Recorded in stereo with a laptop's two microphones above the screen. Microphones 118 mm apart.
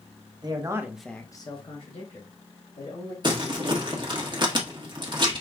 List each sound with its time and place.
0.4 s a man speaking: 40° right (ahead or behind), 1.3 m; by 3.1 s 75° left (ahead or behind), 3 m
3.2 s crumpling: 40° right (ahead or behind), 1.4 m